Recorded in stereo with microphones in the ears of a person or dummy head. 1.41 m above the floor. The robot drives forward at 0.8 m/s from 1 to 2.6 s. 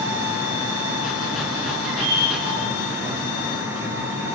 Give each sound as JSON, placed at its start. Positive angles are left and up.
{"t": 1.9, "sound": "a bird", "side_deg": -70, "distance_m": 8.0}